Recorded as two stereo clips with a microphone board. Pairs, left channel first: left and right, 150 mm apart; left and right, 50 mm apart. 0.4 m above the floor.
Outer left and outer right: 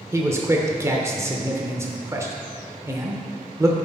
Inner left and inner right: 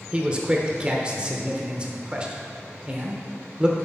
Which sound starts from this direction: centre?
A man speaking, at 0.1 s.